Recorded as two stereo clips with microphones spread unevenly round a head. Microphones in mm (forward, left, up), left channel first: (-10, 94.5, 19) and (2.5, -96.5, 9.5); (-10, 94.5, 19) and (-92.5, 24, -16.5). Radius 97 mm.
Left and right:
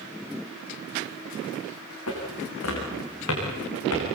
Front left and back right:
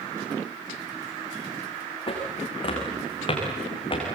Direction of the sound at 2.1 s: 75° left.